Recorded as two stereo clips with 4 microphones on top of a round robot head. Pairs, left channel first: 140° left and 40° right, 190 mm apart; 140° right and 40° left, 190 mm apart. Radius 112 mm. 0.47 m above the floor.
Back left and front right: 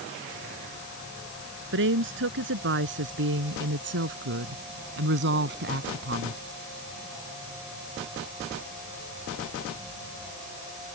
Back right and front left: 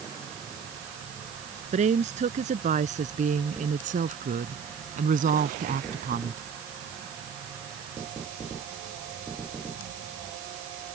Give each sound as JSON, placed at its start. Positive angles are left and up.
{"t": 1.7, "sound": "a woman speaking", "azimuth_deg": -15}